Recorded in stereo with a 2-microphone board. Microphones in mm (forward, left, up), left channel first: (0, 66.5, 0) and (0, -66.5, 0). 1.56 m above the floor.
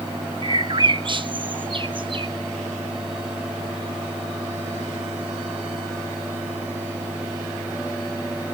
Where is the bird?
40° right (ahead or behind), 1.0 m.